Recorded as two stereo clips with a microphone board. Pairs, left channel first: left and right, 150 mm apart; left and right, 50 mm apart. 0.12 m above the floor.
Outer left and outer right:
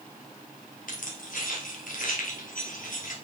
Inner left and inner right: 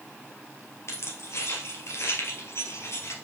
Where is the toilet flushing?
No toilet flushing in this recording.